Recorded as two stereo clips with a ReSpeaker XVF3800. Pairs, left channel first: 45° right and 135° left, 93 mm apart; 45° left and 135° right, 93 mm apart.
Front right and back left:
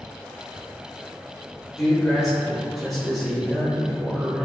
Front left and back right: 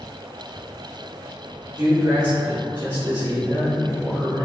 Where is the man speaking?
135° right, 1.2 m.